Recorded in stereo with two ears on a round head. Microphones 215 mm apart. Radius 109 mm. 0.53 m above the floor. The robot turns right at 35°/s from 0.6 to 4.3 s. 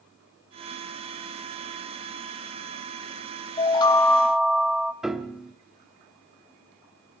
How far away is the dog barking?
No dog barking in this recording.